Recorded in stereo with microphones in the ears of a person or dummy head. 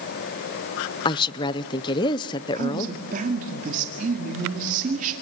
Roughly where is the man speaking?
Right.